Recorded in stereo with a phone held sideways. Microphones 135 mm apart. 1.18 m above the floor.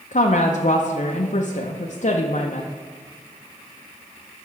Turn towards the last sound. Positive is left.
turn(degrees=65)  # may be behind; listen again after turning